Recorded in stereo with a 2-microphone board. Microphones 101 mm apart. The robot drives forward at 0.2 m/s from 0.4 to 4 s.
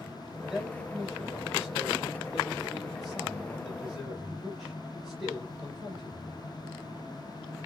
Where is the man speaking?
Centre (ahead or behind), 1.9 m.